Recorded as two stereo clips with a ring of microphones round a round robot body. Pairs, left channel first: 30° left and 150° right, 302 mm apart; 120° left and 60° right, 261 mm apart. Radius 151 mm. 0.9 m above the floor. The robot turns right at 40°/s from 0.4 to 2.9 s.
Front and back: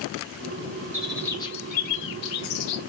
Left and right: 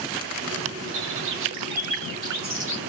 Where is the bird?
65° right, 2.5 m; by 2.8 s 10° left, 2.5 m.